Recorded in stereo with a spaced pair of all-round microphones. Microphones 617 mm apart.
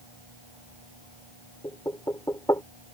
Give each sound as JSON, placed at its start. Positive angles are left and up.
{"t": 1.6, "sound": "knocking", "side_deg": 5}